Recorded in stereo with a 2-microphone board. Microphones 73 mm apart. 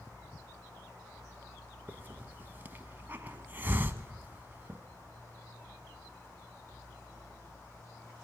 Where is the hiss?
30° right (ahead or behind), 1.1 m.